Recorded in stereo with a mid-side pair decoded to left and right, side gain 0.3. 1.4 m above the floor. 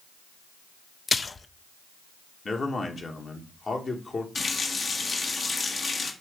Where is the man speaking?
50° left, 1.7 m.